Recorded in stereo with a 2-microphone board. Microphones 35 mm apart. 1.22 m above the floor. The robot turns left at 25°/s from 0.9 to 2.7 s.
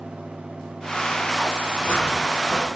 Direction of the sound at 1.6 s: 60° left (ahead or behind).